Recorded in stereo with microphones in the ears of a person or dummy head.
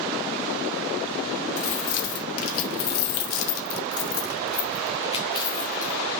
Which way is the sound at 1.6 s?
70° left (ahead or behind).